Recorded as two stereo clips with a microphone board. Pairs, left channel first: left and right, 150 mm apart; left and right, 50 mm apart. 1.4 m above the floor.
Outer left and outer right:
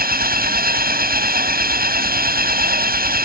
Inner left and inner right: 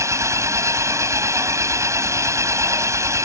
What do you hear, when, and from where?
0.0 s an engine running: 85° right